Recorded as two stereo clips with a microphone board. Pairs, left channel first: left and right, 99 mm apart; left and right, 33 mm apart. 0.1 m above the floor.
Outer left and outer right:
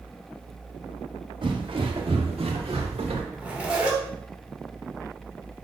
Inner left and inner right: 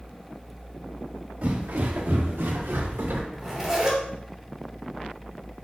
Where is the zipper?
10° right (ahead or behind), 2.5 m.